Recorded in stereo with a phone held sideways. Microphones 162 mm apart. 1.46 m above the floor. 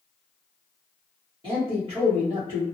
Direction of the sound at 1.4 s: 35° right (ahead or behind).